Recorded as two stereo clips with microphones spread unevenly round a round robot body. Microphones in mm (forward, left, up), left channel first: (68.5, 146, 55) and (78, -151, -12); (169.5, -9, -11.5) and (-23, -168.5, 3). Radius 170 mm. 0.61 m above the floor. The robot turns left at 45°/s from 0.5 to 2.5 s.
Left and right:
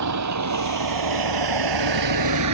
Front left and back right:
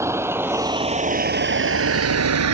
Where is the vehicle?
60° right; by 2.5 s 130° right.